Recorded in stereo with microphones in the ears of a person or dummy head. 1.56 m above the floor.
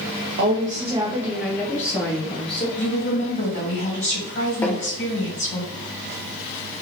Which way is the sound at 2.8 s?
40° left (ahead or behind).